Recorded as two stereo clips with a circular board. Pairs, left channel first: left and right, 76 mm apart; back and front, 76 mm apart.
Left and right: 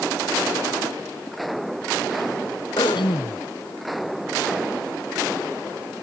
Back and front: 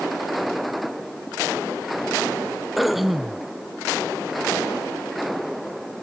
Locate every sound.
2.8 s throat clearing: 85° left